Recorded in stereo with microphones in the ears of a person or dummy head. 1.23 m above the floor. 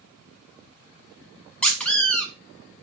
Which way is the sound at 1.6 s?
5° left (ahead or behind).